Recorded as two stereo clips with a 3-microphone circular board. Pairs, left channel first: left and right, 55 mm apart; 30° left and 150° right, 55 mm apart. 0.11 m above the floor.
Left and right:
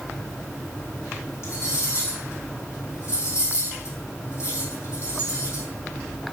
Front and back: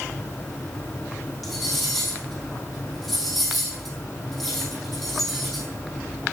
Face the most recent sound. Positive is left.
turn(degrees=120)